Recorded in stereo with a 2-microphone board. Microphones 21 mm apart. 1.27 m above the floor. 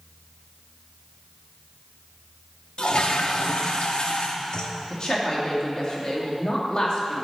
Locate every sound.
2.8 s a toilet flushing: 55° left (ahead or behind), 1.1 m
4.9 s a woman speaking: 40° left (ahead or behind), 2.5 m